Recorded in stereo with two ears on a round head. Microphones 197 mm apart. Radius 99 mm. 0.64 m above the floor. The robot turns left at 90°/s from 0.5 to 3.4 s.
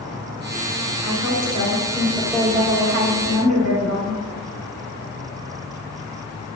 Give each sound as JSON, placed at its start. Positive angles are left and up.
{"t": 1.0, "sound": "a woman speaking", "azimuth_deg": 110, "distance_m": 4.0}